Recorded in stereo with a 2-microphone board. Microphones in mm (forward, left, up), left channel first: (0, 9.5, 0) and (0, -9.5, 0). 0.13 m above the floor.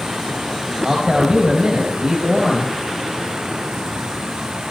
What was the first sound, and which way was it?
A man speaking, 45° right (ahead or behind).